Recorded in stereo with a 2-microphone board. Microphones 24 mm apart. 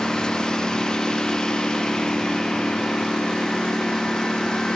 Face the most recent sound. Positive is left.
turn(degrees=30)  # may be behind; listen again after turning